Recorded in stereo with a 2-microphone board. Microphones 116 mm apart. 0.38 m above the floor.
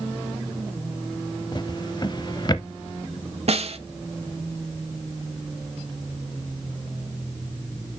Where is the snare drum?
60° right (ahead or behind), 0.8 m.